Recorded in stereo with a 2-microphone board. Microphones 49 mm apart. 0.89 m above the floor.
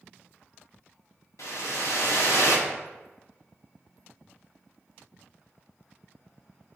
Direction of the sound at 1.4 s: 70° left (ahead or behind).